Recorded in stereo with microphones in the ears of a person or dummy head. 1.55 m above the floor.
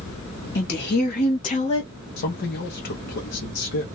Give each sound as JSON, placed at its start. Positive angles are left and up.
{"t": 0.6, "sound": "a woman speaking", "side_deg": 55, "distance_m": 1.8}
{"t": 2.2, "sound": "a man speaking", "side_deg": 55, "distance_m": 1.0}